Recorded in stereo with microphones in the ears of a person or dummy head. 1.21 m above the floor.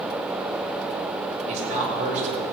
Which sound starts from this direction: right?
A man speaking, at 1.5 s.